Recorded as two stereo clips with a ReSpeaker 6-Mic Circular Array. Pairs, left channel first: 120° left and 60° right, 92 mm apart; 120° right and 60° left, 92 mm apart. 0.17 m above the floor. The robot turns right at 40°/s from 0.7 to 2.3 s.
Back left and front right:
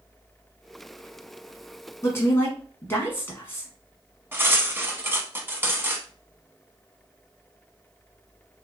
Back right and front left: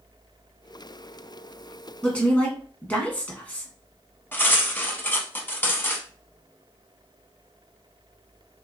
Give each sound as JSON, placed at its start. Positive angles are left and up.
{"t": 2.0, "sound": "a woman speaking", "azimuth_deg": 160, "distance_m": 1.3}
{"t": 4.3, "sound": "cutlery clinking", "azimuth_deg": -85, "distance_m": 0.6}